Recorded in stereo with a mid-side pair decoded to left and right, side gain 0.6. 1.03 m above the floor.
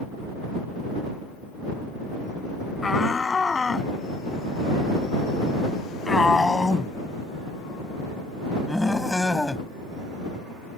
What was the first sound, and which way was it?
A shout, 25° left.